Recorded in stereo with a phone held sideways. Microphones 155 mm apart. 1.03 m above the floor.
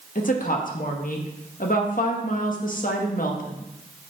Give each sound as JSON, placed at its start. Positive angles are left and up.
{"t": 0.1, "sound": "a woman speaking", "side_deg": 60, "distance_m": 1.3}